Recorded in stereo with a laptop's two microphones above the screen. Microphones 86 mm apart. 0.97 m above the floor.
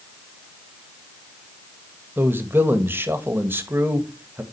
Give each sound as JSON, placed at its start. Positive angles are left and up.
{"t": 2.2, "sound": "a man speaking", "side_deg": -25, "distance_m": 1.4}